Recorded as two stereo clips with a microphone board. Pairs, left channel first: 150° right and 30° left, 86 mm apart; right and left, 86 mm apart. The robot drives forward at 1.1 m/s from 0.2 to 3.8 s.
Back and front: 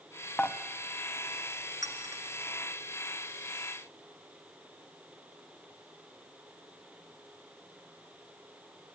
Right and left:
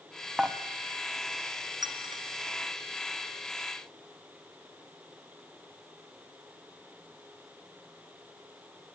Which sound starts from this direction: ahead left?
A clink, at 1.8 s.